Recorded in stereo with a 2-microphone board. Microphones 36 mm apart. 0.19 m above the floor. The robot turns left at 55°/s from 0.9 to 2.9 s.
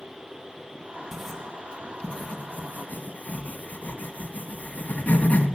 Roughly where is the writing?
Centre.